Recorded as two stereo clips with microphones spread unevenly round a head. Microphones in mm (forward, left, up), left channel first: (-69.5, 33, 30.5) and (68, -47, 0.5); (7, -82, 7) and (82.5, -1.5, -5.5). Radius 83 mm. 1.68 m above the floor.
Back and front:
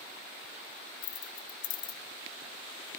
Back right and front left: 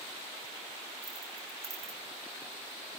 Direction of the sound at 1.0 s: 120° left.